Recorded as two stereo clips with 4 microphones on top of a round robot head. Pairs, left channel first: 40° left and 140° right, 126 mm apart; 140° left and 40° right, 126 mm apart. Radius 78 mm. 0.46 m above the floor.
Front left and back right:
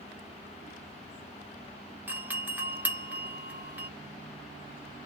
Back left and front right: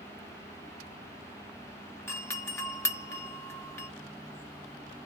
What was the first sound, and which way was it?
A doorbell, 175° left.